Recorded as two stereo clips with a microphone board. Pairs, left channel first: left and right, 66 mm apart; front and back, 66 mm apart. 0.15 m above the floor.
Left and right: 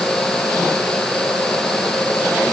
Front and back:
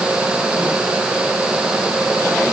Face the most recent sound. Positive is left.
No sound to turn to.